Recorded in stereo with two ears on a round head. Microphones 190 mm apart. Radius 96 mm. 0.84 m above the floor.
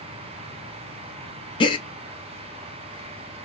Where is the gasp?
25° left (ahead or behind), 0.6 m.